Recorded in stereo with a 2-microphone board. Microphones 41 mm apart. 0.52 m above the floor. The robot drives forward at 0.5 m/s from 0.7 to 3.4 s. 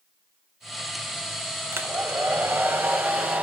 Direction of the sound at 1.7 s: 65° right (ahead or behind).